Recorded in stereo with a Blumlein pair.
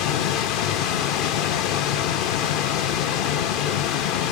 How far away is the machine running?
About 0.9 m.